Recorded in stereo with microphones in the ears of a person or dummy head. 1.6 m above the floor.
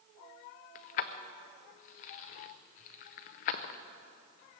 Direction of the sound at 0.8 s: 45° left (ahead or behind).